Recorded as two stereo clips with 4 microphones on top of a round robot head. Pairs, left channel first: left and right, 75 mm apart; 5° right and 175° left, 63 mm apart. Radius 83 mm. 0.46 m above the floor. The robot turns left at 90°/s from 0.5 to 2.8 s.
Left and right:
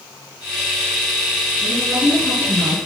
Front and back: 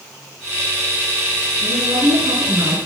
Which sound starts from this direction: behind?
A woman speaking, at 1.6 s.